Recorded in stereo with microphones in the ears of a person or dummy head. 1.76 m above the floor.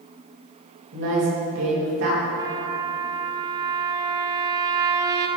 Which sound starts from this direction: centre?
A trumpet, at 2.4 s.